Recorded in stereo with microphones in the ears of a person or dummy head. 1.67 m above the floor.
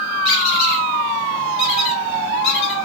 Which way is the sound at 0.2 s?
50° left (ahead or behind).